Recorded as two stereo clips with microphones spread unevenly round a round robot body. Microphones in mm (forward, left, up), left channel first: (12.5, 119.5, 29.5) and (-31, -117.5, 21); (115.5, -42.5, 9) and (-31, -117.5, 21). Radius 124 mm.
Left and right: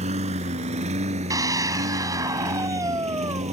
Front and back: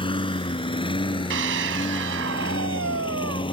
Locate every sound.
0.0 s a lawn mower: 35° right
1.3 s a scream: straight behind